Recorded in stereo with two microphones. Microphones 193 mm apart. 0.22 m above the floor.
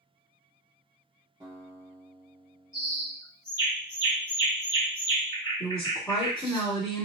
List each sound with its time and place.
1.4 s a guitar: 25° right (ahead or behind), 1.8 m
2.7 s a bird: 20° left (ahead or behind), 1.3 m
5.6 s a woman speaking: 5° left (ahead or behind), 1.6 m